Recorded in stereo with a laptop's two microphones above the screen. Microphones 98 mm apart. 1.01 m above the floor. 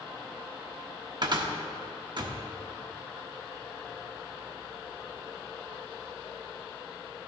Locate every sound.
1.2 s a cupboard door: 50° right (ahead or behind), 1.2 m